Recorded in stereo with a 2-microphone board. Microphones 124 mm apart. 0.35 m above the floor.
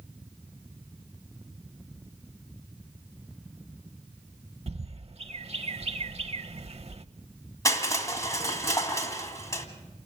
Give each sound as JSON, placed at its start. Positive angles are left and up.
{"t": 4.7, "sound": "a bird", "side_deg": -50, "distance_m": 0.6}
{"t": 7.7, "sound": "crushing", "side_deg": 25, "distance_m": 1.8}